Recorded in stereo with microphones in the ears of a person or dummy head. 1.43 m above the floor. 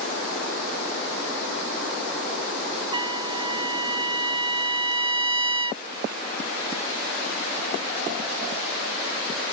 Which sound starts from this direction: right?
A trumpet, at 2.9 s.